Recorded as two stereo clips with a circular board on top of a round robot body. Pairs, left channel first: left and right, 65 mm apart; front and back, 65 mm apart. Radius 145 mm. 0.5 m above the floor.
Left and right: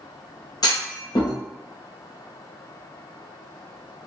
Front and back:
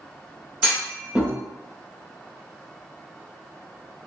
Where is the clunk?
105° left, 1.1 m.